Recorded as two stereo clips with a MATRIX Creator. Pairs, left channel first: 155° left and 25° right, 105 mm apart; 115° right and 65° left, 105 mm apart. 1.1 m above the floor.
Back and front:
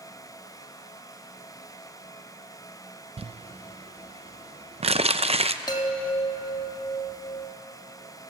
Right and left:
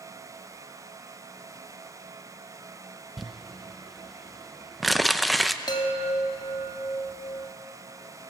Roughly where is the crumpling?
Ahead right.